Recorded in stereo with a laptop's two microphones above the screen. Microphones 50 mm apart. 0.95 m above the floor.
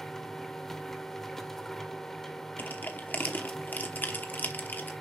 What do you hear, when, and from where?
0.0 s a machine running: 5° left (ahead or behind), 0.7 m
2.6 s crushing: 40° left (ahead or behind), 0.9 m